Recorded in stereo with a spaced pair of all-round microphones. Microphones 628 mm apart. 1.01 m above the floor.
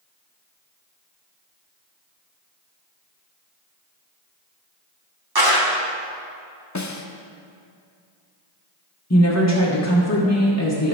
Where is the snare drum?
30° left (ahead or behind), 0.6 m.